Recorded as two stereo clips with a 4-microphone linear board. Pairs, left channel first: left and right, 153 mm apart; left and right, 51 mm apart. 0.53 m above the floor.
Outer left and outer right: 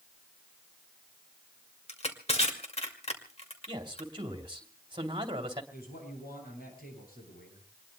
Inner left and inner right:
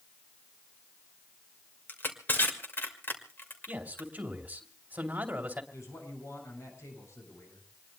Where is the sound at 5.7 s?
75° left (ahead or behind), 8 m.